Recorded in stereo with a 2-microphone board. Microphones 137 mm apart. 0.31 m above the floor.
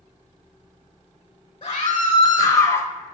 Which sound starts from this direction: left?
A scream, at 1.6 s.